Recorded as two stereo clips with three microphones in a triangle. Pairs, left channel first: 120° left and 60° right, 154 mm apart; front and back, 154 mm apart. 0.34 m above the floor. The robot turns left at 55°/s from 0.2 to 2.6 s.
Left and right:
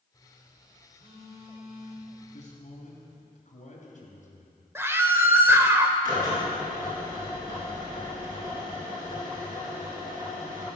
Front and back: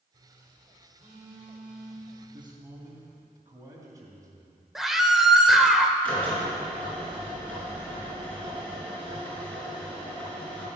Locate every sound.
0.1 s a phone buzzing: straight behind, 4.5 m; by 3.2 s 50° left, 4.5 m
2.2 s a man speaking: 140° left, 2.5 m; by 4.6 s 115° left, 2.5 m
4.8 s a scream: 95° right, 0.9 m
6.0 s a drill: 80° right, 4 m